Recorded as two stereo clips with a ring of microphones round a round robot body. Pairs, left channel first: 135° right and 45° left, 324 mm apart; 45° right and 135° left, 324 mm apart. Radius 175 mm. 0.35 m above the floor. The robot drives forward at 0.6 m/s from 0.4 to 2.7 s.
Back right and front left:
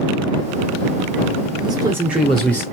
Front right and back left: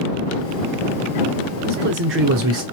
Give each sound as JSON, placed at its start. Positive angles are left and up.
{"t": 1.6, "sound": "a man speaking", "azimuth_deg": 105, "distance_m": 1.2}